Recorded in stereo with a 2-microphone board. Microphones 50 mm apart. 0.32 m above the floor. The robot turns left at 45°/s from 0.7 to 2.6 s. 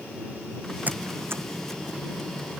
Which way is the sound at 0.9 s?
35° right (ahead or behind).